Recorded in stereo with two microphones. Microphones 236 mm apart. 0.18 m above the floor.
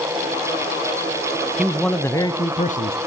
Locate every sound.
1.6 s a man speaking: 5° right (ahead or behind), 1.3 m; by 3.0 s 40° left (ahead or behind), 1.5 m